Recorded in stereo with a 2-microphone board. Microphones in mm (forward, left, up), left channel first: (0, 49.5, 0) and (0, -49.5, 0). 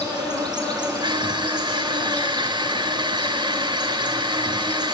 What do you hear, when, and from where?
0.0 s an insect: 45° right (ahead or behind), 7.5 m
1.0 s crushing: 50° right (ahead or behind), 0.9 m